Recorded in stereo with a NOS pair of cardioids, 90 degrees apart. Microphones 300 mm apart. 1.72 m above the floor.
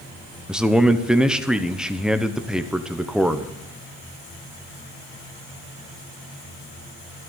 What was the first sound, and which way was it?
A man speaking, straight ahead.